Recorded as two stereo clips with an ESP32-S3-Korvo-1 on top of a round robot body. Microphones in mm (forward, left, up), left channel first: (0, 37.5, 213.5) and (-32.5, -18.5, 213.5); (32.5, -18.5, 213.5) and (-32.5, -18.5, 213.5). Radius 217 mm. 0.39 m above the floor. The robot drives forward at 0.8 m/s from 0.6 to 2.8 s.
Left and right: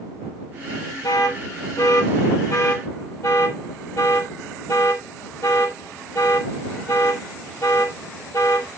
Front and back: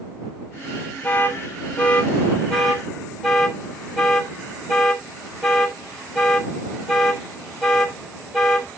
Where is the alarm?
60° left, 3 m; by 8.7 s 90° left, 3 m.